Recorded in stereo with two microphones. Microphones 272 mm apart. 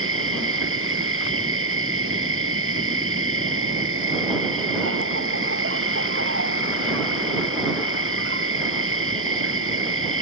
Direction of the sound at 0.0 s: 50° right (ahead or behind).